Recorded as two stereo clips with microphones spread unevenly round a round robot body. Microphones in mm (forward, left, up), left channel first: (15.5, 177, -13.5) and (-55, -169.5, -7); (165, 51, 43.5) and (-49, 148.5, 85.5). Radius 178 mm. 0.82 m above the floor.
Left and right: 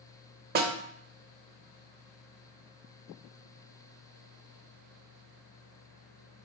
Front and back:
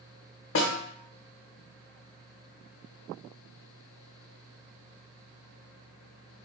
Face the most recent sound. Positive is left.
turn(degrees=-55)